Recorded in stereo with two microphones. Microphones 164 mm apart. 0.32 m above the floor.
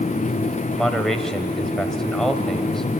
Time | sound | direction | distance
0.7 | a man speaking | 5° left (ahead or behind) | 1.1 m